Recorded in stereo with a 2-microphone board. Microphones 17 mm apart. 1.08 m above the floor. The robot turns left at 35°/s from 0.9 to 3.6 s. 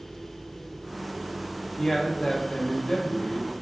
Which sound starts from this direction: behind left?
A man speaking, at 1.8 s.